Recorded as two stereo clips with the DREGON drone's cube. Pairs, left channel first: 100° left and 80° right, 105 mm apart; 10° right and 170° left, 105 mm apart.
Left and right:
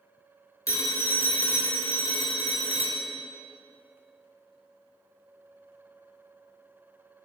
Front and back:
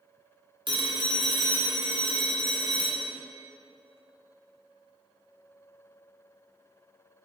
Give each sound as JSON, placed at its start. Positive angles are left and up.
{"t": 0.7, "sound": "a phone ringing", "azimuth_deg": 150, "distance_m": 1.5}